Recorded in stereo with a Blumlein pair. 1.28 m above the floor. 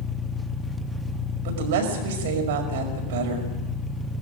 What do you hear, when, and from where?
0.0 s an engine running: 5° left, 1.3 m
1.4 s a woman speaking: 55° right, 5 m